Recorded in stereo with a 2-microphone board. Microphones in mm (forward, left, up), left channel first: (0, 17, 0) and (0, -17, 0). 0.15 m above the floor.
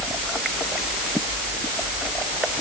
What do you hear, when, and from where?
Only background noise.